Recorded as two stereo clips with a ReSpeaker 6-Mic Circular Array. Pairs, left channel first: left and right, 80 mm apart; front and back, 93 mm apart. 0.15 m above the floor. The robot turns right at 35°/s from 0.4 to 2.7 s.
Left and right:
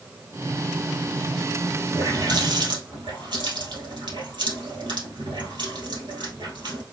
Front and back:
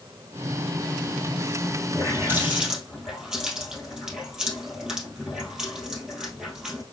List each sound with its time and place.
1.9 s a running tap: 125° right, 2.5 m; by 6.8 s 100° right, 2.5 m